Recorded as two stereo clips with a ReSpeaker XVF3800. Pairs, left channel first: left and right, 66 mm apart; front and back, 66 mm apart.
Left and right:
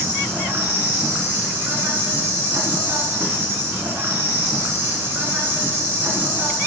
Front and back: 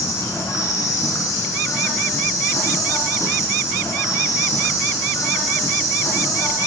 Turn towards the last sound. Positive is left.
turn(degrees=-35)